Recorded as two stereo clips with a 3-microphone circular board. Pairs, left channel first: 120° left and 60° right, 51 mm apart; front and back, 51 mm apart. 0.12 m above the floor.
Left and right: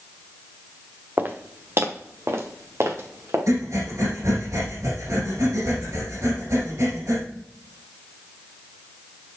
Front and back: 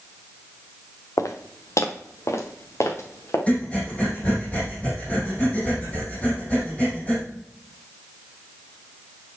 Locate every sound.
1.2 s footsteps: 10° right, 1.2 m; by 3.4 s 30° right, 2.5 m
3.5 s breathing: 60° right, 4.5 m